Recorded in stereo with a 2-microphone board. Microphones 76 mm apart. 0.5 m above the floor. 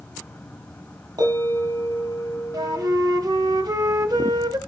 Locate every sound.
0.0 s an insect: 20° left (ahead or behind), 1.9 m
1.2 s a bell: 65° right (ahead or behind), 8.5 m
2.5 s a flute: 55° right (ahead or behind), 1.5 m